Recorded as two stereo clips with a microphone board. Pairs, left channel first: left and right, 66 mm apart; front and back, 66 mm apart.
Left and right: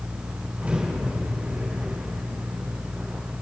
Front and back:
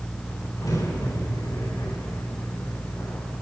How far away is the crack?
About 8.5 m.